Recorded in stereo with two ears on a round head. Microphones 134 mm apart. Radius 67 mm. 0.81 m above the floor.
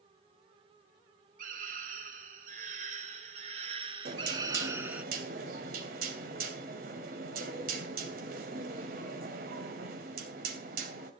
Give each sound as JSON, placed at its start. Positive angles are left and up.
{"t": 1.4, "sound": "a scream", "side_deg": -65, "distance_m": 4.5}
{"t": 4.0, "sound": "knocking", "side_deg": -65, "distance_m": 3.0}